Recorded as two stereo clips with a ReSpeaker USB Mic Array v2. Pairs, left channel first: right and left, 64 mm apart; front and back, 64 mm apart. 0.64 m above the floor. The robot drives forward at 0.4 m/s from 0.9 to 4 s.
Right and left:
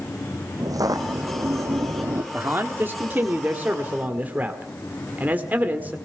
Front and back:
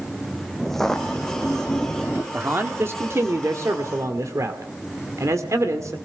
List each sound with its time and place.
0.6 s footsteps: 90° left, 2 m; by 2.2 s 70° left, 1.5 m
2.3 s a man speaking: 135° left, 1.4 m; by 6.0 s 150° left, 1.8 m